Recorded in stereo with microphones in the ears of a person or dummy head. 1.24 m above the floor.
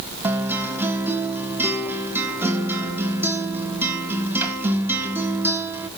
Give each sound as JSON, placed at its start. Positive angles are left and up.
{"t": 0.2, "sound": "a guitar", "side_deg": -10, "distance_m": 1.5}